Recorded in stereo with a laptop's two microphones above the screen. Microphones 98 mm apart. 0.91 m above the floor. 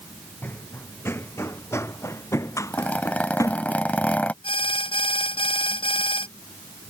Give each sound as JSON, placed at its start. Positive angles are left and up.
{"t": 0.4, "sound": "running footsteps", "side_deg": 20}
{"t": 2.7, "sound": "a zipper", "side_deg": 15}
{"t": 4.4, "sound": "an alarm", "side_deg": 65}